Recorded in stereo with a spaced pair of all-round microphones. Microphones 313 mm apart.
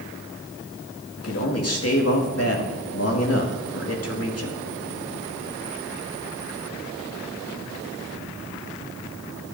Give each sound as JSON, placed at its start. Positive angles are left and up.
{"t": 1.2, "sound": "a man speaking", "side_deg": 50, "distance_m": 2.0}